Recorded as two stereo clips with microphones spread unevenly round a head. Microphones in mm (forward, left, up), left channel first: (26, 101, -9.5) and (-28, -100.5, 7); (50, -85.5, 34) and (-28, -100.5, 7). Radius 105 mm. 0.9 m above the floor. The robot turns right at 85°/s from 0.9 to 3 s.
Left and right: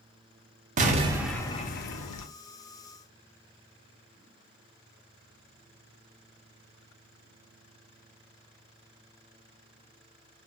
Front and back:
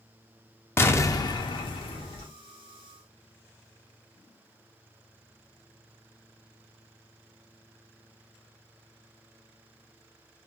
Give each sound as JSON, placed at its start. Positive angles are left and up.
{"t": 0.8, "sound": "an explosion", "azimuth_deg": -50, "distance_m": 0.5}